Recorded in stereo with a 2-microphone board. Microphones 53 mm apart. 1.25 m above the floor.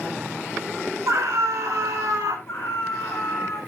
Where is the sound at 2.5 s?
50° left (ahead or behind), 9.5 m.